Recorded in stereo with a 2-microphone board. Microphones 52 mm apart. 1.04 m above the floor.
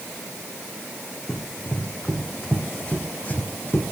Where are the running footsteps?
10° left (ahead or behind), 4 m; by 3.8 s 40° left (ahead or behind), 3 m.